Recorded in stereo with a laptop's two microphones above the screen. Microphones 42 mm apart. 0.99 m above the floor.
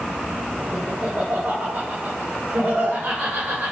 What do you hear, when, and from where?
0.7 s laughter: 65° right (ahead or behind), 1.8 m; by 3.7 s 80° right, 3.5 m